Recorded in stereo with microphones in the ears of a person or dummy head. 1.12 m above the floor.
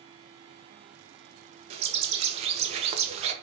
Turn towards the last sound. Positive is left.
turn(degrees=-30)  # may be behind; listen again after turning